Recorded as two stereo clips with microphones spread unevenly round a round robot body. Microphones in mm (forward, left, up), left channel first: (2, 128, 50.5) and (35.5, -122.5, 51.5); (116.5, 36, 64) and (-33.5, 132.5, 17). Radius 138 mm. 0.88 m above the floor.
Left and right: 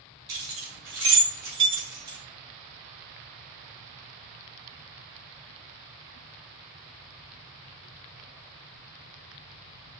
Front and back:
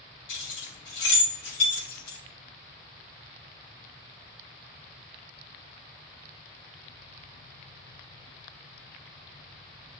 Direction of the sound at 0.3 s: 40° right.